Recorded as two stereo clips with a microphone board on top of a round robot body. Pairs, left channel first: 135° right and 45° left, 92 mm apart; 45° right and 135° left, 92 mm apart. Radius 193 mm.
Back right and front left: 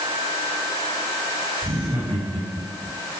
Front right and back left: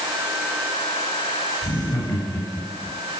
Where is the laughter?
Straight ahead, 9.5 m; by 2.9 s 5° right, 10 m.